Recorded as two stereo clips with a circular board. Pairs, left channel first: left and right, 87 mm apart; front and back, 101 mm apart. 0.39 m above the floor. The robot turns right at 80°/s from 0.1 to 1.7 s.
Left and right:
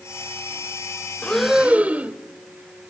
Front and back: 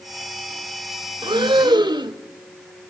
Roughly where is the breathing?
Behind.